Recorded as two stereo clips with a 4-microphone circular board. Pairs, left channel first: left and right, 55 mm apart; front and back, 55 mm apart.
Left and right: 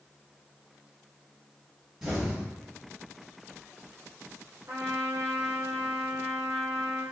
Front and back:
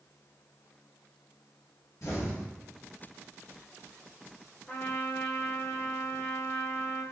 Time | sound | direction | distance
2.0 | an explosion | 10° right | 1.4 m
4.7 | a trumpet | 65° right | 0.8 m